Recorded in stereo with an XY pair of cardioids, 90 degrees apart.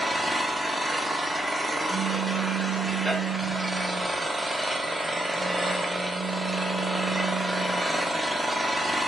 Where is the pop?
25° right, 1.2 m.